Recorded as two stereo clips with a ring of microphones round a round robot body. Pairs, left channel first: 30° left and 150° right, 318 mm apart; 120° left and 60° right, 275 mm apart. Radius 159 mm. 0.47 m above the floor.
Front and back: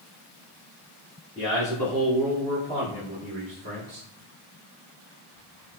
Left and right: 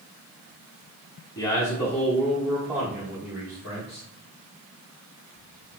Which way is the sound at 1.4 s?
65° left.